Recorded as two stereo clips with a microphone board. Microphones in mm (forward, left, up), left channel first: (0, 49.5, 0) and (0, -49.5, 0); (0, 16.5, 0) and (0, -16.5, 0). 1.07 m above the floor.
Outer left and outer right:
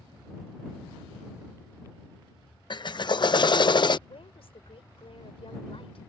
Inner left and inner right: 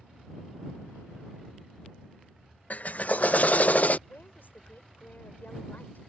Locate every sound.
2.7 s a drill: 50° left (ahead or behind)
4.1 s a woman speaking: 70° left (ahead or behind)